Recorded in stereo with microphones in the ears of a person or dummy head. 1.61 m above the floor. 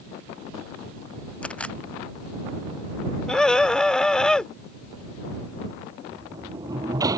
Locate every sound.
1.4 s a camera shutter: 5° left (ahead or behind)
3.3 s a scream: centre (ahead or behind)
6.1 s a sliding door: 25° right (ahead or behind)